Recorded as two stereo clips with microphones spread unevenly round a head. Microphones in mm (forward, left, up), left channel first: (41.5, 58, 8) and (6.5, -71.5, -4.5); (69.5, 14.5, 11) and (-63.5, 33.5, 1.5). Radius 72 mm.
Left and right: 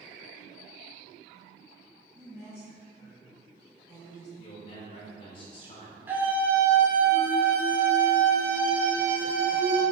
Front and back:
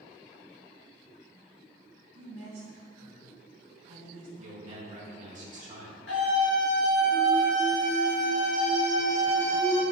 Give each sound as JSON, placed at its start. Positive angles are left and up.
{"t": 2.1, "sound": "a woman speaking", "azimuth_deg": 175, "distance_m": 1.9}
{"t": 4.4, "sound": "a man speaking", "azimuth_deg": 135, "distance_m": 1.5}
{"t": 6.1, "sound": "a scream", "azimuth_deg": -30, "distance_m": 2.5}